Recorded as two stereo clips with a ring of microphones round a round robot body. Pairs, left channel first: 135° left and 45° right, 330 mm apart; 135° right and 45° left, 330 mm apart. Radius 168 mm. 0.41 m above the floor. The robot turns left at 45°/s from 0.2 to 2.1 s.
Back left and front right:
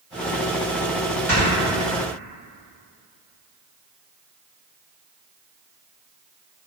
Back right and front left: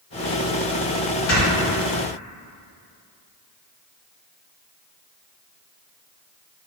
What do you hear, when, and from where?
1.3 s snoring: 145° right, 1.6 m; by 1.5 s 150° right, 1.6 m